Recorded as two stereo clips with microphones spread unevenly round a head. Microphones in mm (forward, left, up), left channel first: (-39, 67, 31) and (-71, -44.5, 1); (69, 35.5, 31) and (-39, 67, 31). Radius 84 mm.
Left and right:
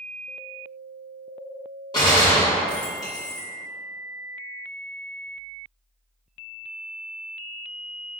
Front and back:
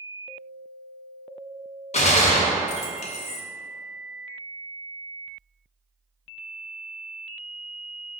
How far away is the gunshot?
About 0.7 m.